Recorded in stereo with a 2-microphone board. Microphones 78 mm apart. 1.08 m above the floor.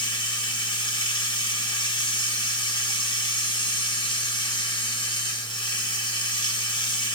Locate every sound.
0.0 s running water: 85° left, 0.9 m